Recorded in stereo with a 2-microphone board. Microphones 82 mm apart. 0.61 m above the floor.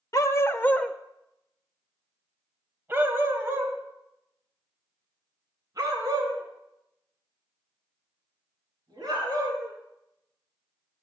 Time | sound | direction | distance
0.1 | a dog barking | 45° left (ahead or behind) | 0.8 m